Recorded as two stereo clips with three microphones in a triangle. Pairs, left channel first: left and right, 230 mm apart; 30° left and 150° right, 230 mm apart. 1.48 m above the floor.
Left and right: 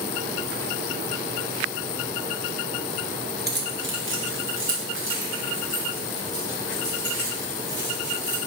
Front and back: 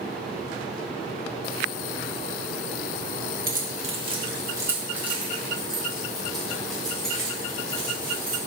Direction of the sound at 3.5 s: 115° right.